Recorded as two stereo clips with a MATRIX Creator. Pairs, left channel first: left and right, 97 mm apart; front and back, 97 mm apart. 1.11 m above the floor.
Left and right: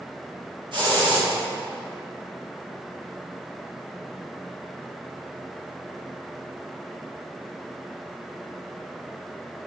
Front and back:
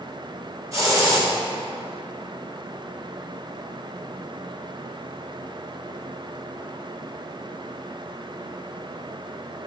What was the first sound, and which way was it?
A hiss, 125° right.